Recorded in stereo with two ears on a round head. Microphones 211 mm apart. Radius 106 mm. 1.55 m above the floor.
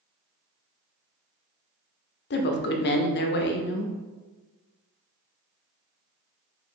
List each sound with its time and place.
2.3 s a woman speaking: 45° left (ahead or behind), 0.5 m